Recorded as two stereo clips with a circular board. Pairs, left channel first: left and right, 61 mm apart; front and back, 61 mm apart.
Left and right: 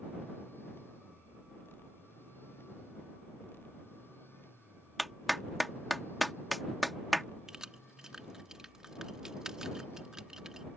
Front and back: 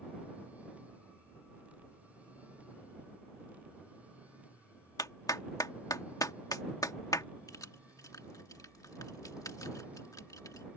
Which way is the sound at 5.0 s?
Straight ahead.